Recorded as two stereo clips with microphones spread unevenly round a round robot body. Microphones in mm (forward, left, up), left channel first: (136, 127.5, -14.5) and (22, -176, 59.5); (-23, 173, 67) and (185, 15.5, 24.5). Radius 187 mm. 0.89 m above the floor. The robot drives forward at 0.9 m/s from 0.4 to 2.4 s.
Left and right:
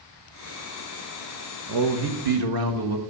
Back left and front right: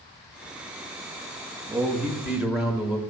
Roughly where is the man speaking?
Right.